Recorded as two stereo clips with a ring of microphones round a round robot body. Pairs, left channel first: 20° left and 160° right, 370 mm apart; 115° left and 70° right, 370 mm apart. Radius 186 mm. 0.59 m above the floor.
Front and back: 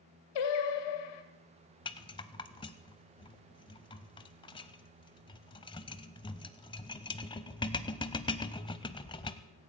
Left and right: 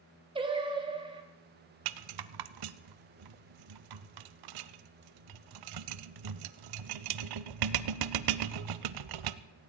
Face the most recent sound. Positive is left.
turn(degrees=-55)